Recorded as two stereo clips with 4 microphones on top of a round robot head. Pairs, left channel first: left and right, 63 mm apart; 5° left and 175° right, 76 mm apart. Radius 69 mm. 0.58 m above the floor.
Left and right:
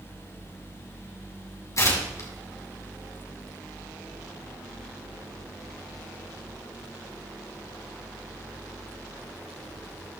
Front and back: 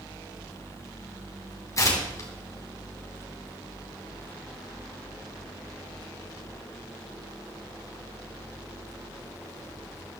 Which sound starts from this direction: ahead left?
Tearing paper, at 1.8 s.